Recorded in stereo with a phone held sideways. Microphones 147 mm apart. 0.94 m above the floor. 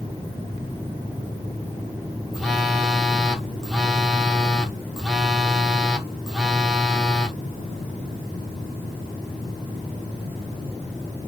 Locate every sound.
2.3 s a phone buzzing: centre (ahead or behind), 0.7 m